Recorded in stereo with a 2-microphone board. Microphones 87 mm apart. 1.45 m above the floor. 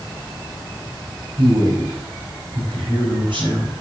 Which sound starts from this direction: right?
A man speaking, at 1.4 s.